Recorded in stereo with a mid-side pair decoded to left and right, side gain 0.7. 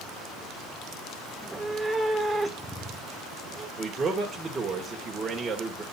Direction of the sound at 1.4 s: 10° right.